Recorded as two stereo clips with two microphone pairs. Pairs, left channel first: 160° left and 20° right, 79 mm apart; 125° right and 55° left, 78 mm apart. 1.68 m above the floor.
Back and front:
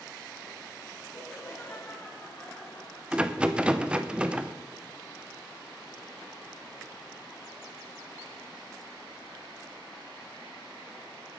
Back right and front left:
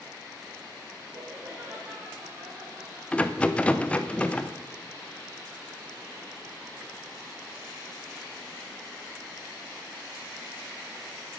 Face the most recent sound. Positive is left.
turn(degrees=-80)